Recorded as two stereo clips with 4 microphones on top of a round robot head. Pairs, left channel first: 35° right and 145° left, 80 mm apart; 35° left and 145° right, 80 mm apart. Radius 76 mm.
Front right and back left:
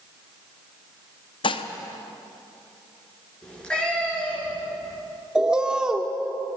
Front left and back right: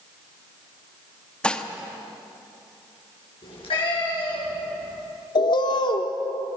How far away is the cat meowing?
About 6.5 m.